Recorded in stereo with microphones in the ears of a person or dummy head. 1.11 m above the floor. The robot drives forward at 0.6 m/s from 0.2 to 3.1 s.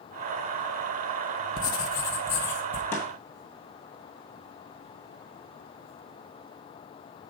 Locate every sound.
1.6 s writing: 25° left (ahead or behind), 0.5 m; by 2.8 s 10° left (ahead or behind), 1.2 m
2.9 s a snare drum: 10° left (ahead or behind), 1.8 m